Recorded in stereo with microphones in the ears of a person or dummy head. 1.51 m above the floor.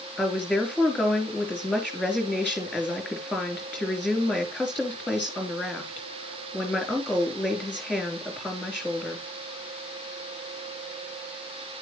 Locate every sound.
0.2 s a woman speaking: 10° left (ahead or behind), 3 m